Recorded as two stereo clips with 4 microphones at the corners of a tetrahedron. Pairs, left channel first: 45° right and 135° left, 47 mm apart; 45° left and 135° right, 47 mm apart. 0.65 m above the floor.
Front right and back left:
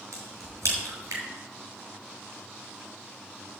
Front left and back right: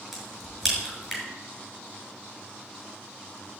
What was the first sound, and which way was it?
A crack, 140° left.